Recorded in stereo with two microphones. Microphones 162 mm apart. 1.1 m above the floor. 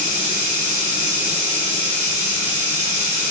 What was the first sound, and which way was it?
Running water, 50° right (ahead or behind).